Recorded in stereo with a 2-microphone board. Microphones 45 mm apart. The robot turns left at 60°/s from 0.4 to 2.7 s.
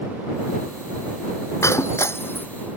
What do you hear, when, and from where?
1.6 s breaking glass: 80° left; by 2.5 s 45° left (ahead or behind)